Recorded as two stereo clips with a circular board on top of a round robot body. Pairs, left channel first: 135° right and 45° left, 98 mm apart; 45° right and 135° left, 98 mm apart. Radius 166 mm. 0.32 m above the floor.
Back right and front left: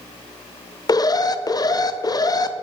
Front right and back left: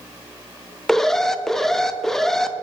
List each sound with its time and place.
0.9 s an alarm: 130° right, 0.7 m